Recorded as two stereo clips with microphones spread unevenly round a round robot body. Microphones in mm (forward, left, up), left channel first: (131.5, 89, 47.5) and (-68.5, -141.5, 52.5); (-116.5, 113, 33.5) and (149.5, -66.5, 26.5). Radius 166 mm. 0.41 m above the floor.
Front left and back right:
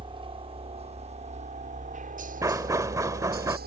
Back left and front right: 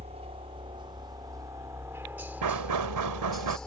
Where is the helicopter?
80° right; by 3.7 s 125° right.